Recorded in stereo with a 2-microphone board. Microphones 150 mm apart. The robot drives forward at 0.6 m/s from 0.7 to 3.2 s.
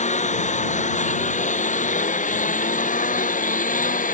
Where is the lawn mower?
60° left (ahead or behind); by 4.1 s 70° left (ahead or behind).